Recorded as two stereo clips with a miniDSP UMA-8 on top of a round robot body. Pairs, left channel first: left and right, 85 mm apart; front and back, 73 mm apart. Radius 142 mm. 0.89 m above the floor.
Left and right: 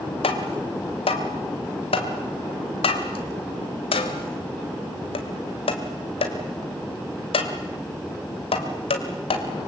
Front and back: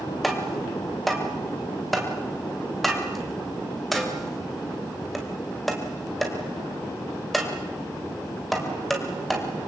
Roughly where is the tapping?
Left.